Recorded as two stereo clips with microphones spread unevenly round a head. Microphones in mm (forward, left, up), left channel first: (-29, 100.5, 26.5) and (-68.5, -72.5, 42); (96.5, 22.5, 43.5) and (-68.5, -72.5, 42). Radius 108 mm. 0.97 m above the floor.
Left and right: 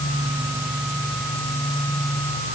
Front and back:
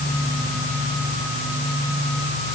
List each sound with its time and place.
Only background noise.